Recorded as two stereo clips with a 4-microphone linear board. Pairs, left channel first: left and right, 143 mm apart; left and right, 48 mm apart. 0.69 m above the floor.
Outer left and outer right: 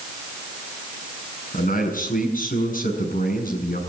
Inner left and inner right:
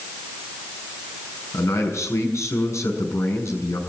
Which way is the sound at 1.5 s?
65° left (ahead or behind).